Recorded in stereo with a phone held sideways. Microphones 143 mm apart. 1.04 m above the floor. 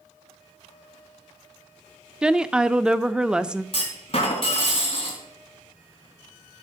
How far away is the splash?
I don't hear a splash.